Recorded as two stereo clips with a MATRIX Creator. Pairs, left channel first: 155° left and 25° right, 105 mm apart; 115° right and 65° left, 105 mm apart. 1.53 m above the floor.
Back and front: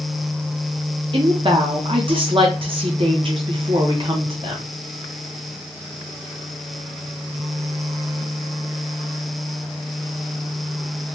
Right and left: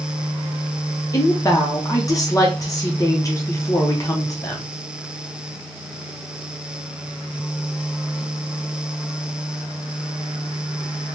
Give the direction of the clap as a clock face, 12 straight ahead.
No clap in this recording.